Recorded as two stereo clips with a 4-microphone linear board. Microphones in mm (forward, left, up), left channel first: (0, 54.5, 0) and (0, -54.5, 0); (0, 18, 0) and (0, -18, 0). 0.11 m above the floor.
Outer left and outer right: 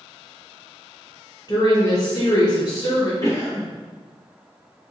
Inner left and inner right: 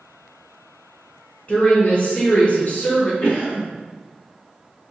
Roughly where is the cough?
Left.